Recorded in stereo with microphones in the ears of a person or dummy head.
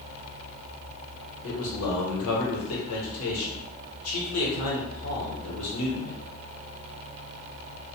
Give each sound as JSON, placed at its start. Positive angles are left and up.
{"t": 1.4, "sound": "a man speaking", "side_deg": 75, "distance_m": 1.1}